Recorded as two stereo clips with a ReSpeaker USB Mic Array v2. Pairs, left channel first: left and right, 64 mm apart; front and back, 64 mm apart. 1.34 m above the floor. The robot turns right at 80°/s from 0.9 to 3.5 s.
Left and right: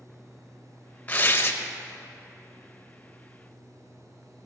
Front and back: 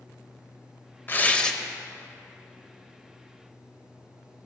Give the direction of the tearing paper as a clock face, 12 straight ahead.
11 o'clock.